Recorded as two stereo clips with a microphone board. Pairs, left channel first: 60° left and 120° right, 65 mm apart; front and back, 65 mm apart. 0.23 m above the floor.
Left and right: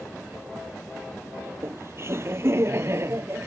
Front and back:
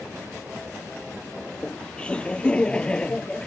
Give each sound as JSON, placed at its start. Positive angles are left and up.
{"t": 1.5, "sound": "laughter", "azimuth_deg": -75}